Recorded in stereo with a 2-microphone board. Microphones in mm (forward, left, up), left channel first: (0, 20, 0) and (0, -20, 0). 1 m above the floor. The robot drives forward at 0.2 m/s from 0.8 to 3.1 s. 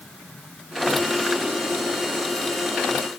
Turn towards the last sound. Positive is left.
No sound to turn to.